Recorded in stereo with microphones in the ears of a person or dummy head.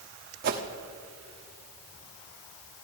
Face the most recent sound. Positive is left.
turn(degrees=-55)  # may be behind; listen again after turning